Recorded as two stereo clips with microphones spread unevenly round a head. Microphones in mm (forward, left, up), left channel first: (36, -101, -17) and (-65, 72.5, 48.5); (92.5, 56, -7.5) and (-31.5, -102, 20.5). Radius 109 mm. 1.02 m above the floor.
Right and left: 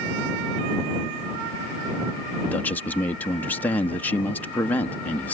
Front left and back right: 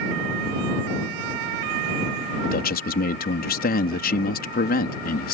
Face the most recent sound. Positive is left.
turn(degrees=15)